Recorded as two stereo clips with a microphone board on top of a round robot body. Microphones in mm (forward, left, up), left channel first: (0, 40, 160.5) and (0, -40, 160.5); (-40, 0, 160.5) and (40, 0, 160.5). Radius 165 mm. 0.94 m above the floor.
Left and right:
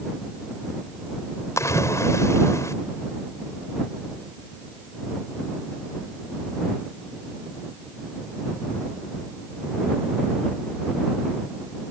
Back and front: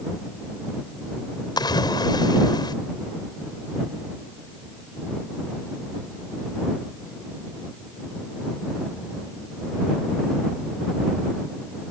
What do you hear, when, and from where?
1.6 s a splash: 145° left